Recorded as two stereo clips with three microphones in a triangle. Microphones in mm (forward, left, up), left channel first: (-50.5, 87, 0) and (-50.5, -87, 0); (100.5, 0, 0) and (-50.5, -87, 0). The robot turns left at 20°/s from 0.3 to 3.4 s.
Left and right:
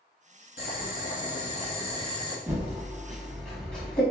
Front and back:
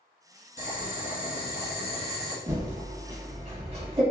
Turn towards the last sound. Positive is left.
turn(degrees=170)